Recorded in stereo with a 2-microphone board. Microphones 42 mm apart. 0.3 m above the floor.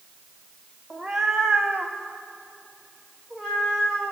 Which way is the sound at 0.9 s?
10° right (ahead or behind).